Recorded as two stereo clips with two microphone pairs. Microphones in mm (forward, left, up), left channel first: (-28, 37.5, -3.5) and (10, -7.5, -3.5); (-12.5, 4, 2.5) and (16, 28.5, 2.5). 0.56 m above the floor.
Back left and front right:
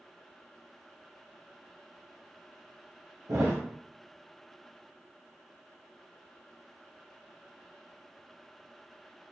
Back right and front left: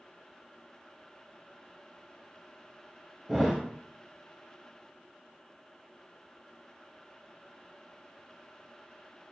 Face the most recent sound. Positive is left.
turn(degrees=-40)